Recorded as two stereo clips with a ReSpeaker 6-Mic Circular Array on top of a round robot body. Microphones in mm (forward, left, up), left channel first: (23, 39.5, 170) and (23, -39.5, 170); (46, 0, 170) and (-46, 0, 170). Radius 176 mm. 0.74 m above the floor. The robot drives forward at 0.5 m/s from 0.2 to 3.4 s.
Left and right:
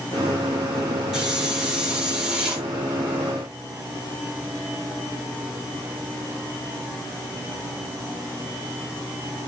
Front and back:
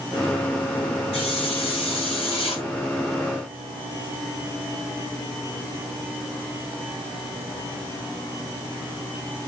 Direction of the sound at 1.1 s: 10° right.